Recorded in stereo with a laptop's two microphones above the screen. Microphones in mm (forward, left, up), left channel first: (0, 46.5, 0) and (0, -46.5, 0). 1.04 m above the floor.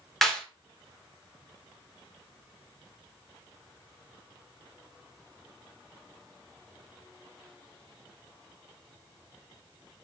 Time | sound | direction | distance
0.2 | a clap | 5° left (ahead or behind) | 1.0 m